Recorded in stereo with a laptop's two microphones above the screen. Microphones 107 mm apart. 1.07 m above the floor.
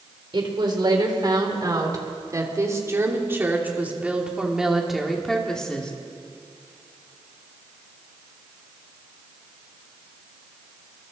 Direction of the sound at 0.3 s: 50° right (ahead or behind).